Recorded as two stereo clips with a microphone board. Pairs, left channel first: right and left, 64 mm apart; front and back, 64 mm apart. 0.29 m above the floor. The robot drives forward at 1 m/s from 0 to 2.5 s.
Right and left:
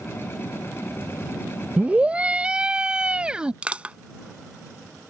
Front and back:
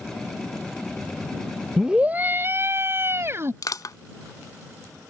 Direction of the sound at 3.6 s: 20° left.